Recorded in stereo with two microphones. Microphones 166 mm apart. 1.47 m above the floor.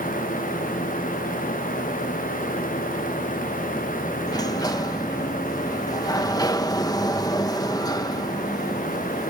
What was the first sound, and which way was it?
A sliding door, 20° left (ahead or behind).